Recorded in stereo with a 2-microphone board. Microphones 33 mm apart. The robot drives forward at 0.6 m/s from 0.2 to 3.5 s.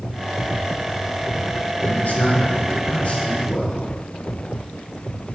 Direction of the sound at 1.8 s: 60° left (ahead or behind).